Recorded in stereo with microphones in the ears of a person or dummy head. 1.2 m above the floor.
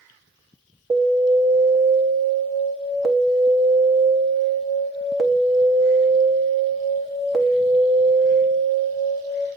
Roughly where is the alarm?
Centre.